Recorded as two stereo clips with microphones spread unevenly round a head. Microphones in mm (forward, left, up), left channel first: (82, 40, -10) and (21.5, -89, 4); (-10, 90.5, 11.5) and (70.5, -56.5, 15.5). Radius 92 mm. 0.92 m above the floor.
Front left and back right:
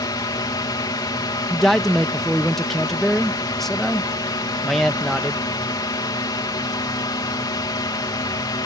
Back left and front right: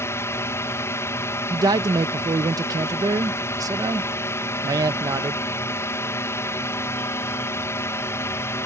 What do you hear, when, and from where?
0.0 s a drone: 65° left
1.5 s a man speaking: 10° right